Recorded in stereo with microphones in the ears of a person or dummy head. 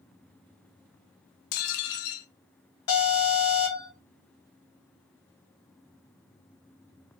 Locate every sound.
1.5 s dishes clattering: 50° left (ahead or behind), 0.5 m
2.9 s an alarm: 60° left (ahead or behind), 2.5 m